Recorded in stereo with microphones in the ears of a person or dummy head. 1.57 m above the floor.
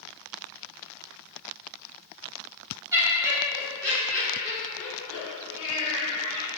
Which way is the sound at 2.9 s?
15° right (ahead or behind).